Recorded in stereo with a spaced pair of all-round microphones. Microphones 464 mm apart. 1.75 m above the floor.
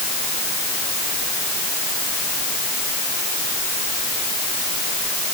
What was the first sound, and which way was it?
Only background noise.